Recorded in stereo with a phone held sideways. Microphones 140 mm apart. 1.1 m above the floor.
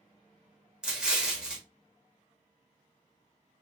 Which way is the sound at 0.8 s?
5° right (ahead or behind).